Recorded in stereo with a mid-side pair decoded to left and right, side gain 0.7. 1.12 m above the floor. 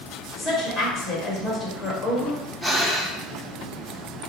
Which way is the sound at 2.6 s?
Straight ahead.